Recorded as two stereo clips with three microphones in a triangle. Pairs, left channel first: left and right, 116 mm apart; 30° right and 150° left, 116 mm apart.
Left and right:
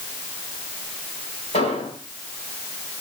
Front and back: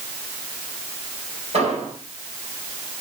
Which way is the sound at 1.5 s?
115° left.